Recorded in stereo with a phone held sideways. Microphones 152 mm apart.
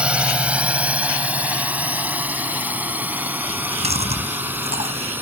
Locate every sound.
0.0 s a drone: 5° right (ahead or behind); by 5.2 s 10° right (ahead or behind)
3.5 s chewing: 45° right (ahead or behind)